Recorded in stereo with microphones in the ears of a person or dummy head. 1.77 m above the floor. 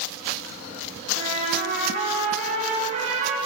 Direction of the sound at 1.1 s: 45° right (ahead or behind).